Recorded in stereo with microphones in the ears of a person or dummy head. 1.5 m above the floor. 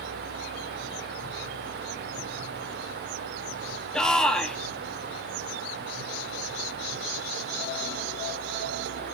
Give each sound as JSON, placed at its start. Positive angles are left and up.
{"t": 3.9, "sound": "a shout", "side_deg": 5, "distance_m": 2.5}